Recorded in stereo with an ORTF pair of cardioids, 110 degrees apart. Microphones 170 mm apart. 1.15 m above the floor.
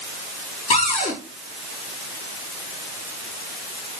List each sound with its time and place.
0.7 s a cupboard door: 45° left, 5.5 m